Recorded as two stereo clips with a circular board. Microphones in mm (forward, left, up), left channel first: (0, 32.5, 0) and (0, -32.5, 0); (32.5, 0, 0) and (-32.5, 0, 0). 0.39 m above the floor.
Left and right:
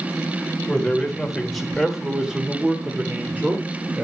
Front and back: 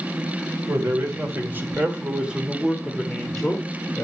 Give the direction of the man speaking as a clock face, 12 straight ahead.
7 o'clock.